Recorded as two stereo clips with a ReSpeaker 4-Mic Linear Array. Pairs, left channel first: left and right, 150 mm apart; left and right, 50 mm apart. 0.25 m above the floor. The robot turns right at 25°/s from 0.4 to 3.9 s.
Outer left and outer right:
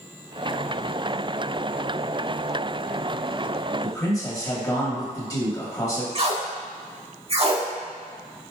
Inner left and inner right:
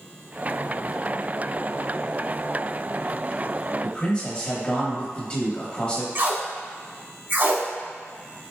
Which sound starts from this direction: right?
Tape being pulled, at 6.2 s.